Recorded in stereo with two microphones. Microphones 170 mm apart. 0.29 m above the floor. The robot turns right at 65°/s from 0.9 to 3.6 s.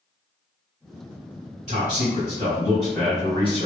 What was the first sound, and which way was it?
A man speaking, 75° right.